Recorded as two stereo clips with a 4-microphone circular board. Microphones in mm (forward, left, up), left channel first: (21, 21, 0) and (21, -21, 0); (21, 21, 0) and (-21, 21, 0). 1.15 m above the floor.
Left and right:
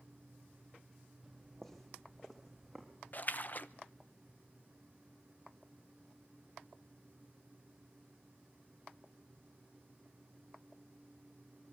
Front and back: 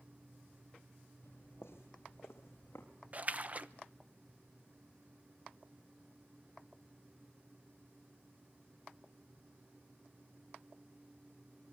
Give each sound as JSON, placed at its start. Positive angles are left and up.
{"t": 1.2, "sound": "footsteps", "azimuth_deg": 10, "distance_m": 3.0}
{"t": 3.1, "sound": "a splash", "azimuth_deg": 130, "distance_m": 0.8}